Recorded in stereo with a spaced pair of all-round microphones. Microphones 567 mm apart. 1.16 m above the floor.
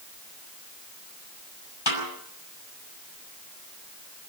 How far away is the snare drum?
About 6 m.